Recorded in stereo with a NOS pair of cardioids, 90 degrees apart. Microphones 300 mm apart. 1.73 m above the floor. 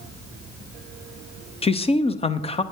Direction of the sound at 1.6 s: 20° left.